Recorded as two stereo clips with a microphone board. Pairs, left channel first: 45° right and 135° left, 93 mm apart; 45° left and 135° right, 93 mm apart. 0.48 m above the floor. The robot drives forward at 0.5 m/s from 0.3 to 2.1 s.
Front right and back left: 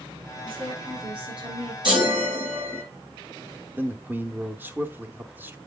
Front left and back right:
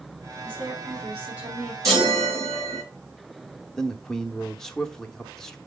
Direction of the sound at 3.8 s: 120° left.